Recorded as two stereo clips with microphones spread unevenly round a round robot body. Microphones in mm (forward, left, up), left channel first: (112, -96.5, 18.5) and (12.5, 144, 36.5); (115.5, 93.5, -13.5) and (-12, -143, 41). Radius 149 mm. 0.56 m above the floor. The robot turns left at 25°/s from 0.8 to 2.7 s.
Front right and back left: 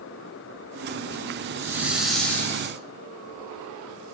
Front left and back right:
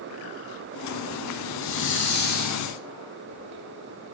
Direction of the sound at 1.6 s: 35° left.